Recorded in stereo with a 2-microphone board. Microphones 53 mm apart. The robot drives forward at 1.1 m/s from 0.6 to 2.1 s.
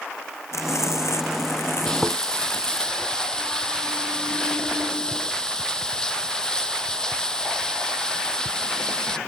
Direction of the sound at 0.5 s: 70° left (ahead or behind).